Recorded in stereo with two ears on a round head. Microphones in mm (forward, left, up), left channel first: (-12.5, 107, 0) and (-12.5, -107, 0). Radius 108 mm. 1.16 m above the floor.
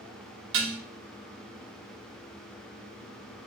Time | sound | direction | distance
0.5 | dishes clattering | 55° right (ahead or behind) | 0.8 m